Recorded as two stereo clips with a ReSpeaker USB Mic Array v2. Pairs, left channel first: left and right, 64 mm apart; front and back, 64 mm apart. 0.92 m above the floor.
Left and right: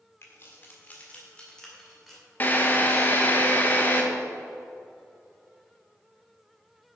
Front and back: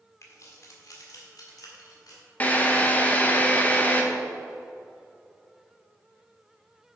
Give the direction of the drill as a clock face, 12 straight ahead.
10 o'clock.